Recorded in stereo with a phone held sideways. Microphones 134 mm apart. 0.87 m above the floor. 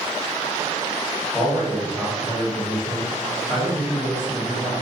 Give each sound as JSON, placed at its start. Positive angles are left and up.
{"t": 1.3, "sound": "a man speaking", "side_deg": -5, "distance_m": 1.3}